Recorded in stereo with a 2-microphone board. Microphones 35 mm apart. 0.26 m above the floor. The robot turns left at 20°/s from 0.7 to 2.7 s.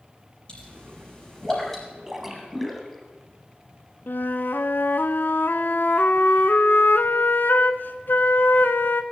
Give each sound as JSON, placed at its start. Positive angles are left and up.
{"t": 0.5, "sound": "a pop", "side_deg": 30, "distance_m": 5.0}
{"t": 2.1, "sound": "a splash", "side_deg": -10, "distance_m": 2.5}
{"t": 4.1, "sound": "a flute", "side_deg": 80, "distance_m": 0.8}